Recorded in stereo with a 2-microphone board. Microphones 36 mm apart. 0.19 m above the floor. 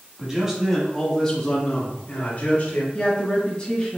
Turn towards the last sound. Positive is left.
turn(degrees=25)  # may be behind; listen again after turning